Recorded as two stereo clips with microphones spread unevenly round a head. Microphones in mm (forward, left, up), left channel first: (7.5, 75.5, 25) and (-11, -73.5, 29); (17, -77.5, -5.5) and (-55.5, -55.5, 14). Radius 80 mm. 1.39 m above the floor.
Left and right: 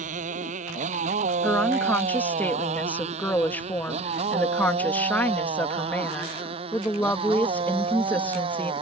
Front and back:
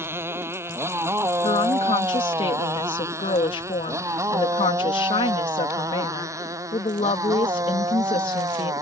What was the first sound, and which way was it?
A motorcycle, 140° right.